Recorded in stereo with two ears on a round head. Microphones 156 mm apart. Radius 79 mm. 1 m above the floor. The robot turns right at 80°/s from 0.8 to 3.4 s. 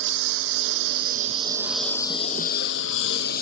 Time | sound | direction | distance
0.0 | a lawn mower | 70° right (ahead or behind) | ?